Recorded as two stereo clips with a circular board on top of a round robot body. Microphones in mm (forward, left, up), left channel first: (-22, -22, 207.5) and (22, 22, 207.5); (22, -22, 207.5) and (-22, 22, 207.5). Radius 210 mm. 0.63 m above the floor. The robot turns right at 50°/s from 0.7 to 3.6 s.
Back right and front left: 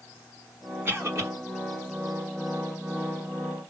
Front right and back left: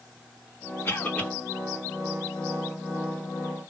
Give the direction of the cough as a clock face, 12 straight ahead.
12 o'clock.